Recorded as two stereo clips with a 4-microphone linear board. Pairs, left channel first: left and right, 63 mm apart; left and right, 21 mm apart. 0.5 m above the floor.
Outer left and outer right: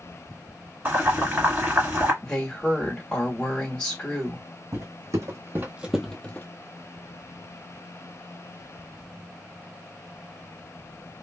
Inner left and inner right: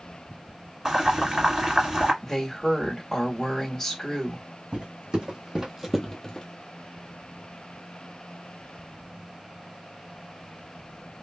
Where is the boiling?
35° right (ahead or behind), 1.4 m.